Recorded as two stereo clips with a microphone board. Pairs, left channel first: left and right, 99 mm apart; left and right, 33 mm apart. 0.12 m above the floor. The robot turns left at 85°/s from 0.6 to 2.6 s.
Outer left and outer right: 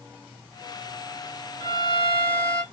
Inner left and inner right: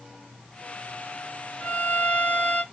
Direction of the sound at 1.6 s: 150° left.